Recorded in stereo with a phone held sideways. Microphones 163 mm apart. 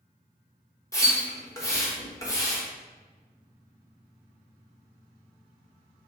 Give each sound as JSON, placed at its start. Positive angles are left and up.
{"t": 0.9, "sound": "a splash", "side_deg": 20, "distance_m": 1.0}